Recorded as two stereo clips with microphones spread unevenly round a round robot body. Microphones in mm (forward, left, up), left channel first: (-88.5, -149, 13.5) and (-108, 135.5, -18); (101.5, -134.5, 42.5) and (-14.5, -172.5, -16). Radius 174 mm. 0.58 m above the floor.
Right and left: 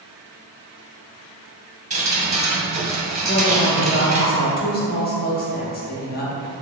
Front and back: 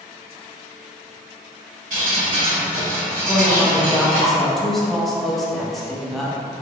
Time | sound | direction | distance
1.9 | dripping | 160° left | 1.0 m
3.2 | a woman speaking | 120° right | 0.6 m